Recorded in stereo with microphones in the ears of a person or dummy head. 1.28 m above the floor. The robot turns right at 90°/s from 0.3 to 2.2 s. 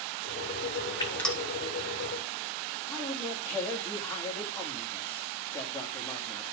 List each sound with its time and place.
1.0 s dripping: 30° left (ahead or behind), 1.1 m; by 1.4 s 5° right (ahead or behind), 1.1 m
2.9 s a man speaking: 15° left (ahead or behind), 2.5 m